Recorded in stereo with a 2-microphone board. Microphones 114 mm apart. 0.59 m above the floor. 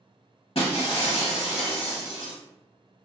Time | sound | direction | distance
0.6 | breaking glass | 55° left (ahead or behind) | 0.8 m